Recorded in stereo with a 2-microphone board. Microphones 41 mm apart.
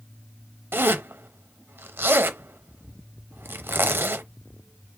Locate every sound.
0.7 s a zipper: 65° right (ahead or behind), 0.5 m